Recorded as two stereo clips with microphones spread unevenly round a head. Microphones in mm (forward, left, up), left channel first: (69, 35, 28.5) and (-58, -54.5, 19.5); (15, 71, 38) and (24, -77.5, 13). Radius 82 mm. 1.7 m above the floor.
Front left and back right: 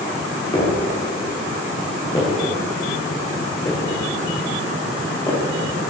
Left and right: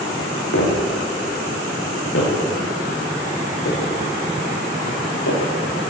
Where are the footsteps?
100° left, 9 m; by 5.4 s 105° left, 13.5 m.